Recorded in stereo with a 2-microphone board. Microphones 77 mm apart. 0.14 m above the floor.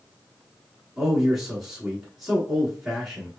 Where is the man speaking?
Centre (ahead or behind), 1.2 m.